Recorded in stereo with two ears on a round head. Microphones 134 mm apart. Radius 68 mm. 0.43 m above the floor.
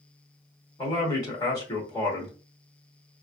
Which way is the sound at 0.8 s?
25° left (ahead or behind).